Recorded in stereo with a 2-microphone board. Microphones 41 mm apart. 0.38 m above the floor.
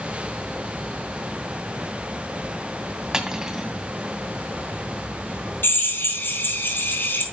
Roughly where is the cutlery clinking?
Centre.